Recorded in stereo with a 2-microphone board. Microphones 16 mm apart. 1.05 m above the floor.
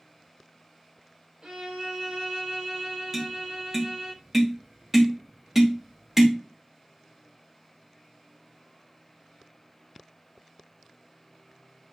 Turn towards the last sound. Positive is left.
turn(degrees=-20)  # may be behind; listen again after turning